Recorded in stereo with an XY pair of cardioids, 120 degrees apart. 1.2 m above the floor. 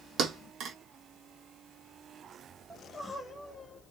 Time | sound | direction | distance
0.2 | a thud | 60° right | 1.5 m
2.7 | crying | straight ahead | 1.6 m